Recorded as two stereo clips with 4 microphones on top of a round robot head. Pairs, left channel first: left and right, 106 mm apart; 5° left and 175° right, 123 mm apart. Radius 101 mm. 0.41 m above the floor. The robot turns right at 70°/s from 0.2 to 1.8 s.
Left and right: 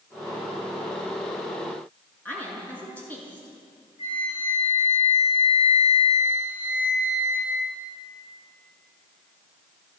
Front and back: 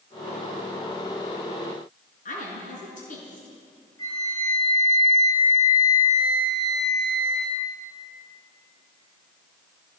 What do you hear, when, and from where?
2.2 s a woman speaking: 15° left, 6 m
4.0 s a flute: 65° left, 7 m